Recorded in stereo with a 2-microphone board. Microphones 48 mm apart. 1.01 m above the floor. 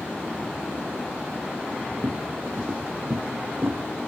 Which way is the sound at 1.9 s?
65° right (ahead or behind).